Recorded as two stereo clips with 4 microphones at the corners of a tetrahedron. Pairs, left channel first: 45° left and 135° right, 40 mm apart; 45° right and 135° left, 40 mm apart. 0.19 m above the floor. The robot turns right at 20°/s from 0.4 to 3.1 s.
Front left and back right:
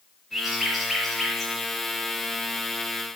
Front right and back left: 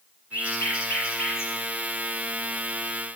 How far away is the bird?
About 5 m.